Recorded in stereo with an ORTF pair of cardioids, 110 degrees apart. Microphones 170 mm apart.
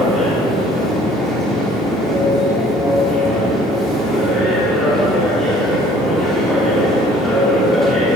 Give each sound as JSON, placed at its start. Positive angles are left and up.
{"t": 0.0, "sound": "a machine running", "azimuth_deg": 0, "distance_m": 2.5}